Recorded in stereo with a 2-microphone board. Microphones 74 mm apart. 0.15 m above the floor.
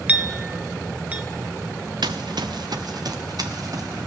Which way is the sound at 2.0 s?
80° right.